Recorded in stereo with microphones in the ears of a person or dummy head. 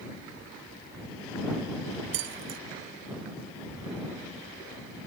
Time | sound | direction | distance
2.1 | keys jangling | 65° right (ahead or behind) | ?